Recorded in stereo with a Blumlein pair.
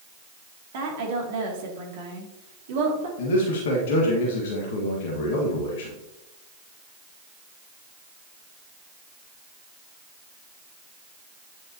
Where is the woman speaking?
55° right, 2.5 m.